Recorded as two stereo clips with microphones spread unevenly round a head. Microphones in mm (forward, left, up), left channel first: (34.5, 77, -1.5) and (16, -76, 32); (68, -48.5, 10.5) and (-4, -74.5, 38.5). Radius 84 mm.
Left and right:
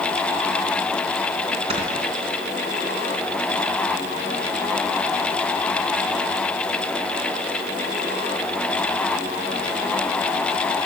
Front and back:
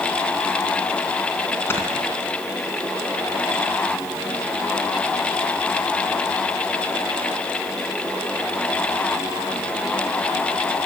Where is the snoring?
45° right, 3 m.